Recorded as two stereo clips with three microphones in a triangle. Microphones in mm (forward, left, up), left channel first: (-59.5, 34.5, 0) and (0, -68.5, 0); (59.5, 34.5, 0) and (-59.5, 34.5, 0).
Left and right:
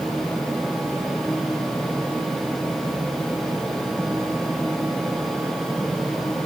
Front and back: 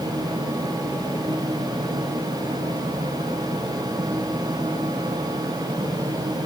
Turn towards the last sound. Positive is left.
No sound to turn to.